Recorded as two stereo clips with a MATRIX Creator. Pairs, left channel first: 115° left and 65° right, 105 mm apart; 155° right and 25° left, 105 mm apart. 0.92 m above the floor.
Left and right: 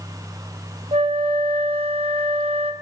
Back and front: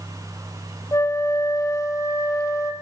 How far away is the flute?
About 0.6 m.